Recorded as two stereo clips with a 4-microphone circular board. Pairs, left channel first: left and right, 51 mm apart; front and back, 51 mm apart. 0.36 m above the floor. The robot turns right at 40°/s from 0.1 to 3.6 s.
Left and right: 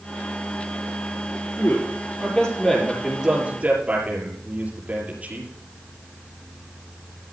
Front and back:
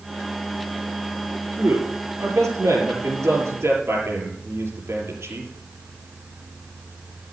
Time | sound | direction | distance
1.6 | a man speaking | 125° left | 7 m